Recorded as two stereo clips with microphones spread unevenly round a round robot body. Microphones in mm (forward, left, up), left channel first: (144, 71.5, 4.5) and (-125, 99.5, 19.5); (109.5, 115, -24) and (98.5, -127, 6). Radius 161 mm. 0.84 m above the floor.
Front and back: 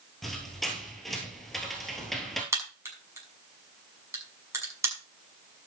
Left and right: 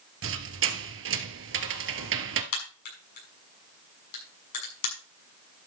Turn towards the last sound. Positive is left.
turn(degrees=95)